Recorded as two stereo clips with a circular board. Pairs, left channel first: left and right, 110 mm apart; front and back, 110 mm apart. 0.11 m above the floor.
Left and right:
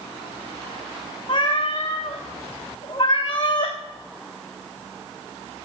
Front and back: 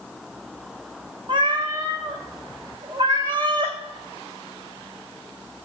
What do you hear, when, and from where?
1.3 s a cat meowing: 135° left, 1.4 m